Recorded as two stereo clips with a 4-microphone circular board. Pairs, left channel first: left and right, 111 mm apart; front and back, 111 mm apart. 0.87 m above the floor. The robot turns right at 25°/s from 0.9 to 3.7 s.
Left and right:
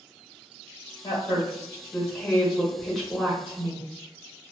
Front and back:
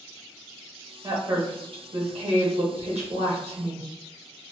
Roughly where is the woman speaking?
Behind left.